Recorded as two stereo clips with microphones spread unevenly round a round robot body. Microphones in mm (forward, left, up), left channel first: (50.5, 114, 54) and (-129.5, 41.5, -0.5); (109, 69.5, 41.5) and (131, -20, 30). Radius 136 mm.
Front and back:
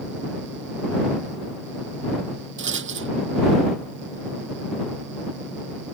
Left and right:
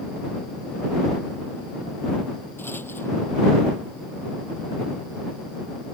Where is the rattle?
175° right.